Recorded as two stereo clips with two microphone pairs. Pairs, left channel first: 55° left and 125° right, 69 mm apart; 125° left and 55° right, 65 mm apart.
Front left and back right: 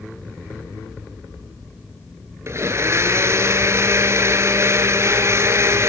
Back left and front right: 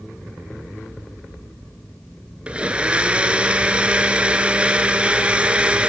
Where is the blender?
120° right, 1.1 m.